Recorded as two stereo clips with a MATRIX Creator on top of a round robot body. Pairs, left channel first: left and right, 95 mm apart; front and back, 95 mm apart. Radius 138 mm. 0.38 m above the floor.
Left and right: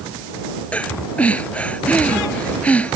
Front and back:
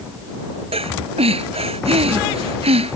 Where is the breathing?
165° left.